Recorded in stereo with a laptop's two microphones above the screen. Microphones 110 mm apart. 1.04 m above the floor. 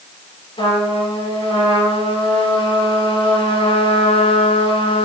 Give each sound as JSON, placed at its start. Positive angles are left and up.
{"t": 0.6, "sound": "a trumpet", "side_deg": 55, "distance_m": 4.0}